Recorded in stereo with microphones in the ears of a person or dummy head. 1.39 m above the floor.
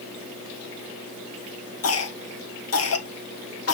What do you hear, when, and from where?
1.8 s a cough: 75° left (ahead or behind), 1.3 m